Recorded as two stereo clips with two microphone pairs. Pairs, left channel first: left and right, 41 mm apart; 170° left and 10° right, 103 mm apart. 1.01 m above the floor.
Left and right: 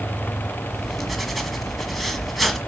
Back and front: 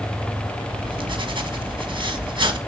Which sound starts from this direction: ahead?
Writing, at 0.7 s.